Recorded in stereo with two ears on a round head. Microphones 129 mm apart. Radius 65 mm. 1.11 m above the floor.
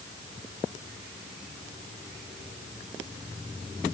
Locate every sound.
Only background noise.